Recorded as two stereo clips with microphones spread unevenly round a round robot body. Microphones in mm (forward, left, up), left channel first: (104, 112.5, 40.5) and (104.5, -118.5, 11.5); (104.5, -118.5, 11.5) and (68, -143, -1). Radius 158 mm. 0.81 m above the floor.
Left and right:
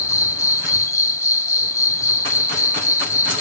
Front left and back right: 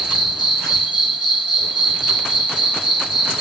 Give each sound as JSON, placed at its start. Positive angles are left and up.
{"t": 0.0, "sound": "an insect", "azimuth_deg": 170, "distance_m": 0.9}